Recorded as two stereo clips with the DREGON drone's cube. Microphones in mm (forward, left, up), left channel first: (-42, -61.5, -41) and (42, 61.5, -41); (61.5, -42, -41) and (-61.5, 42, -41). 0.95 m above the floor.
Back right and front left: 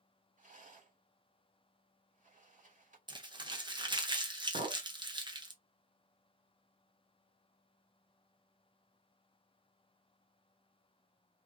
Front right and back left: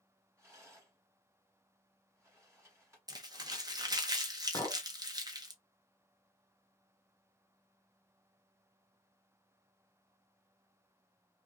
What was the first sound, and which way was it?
A rattle, 75° left.